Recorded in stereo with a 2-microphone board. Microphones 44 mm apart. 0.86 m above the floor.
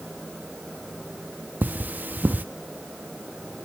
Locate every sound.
1.6 s cutlery clinking: 40° right (ahead or behind), 0.6 m